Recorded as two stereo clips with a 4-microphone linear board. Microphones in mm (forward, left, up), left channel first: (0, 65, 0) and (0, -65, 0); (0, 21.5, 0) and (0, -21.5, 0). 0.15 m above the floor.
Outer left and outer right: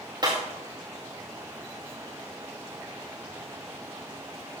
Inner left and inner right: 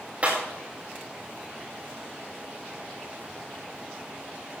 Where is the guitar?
I don't hear a guitar.